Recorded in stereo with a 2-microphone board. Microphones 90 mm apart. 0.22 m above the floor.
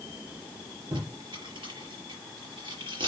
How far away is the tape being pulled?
About 6 m.